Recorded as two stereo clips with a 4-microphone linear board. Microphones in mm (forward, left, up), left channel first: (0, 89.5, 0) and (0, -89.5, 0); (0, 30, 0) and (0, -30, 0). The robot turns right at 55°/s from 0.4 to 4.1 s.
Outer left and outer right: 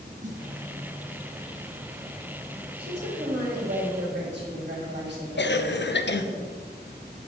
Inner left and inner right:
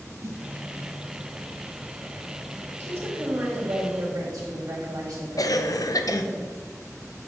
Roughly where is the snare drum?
Right.